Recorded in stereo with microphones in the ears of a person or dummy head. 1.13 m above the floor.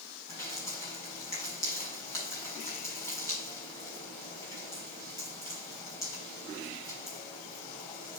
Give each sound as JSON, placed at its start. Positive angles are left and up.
{"t": 0.3, "sound": "dripping", "side_deg": 15, "distance_m": 5.0}